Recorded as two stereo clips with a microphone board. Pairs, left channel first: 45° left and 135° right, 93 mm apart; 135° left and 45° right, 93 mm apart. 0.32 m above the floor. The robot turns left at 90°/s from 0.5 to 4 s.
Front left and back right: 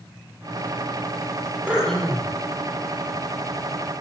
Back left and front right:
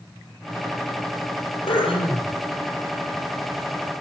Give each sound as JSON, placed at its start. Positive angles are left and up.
{"t": 1.7, "sound": "throat clearing", "azimuth_deg": 150, "distance_m": 6.5}